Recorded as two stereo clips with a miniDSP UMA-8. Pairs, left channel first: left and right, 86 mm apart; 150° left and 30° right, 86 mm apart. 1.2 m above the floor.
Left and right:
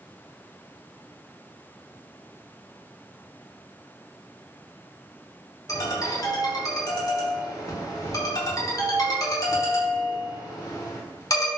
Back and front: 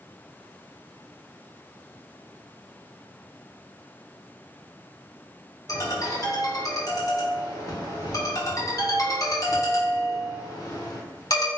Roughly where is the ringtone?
Behind left.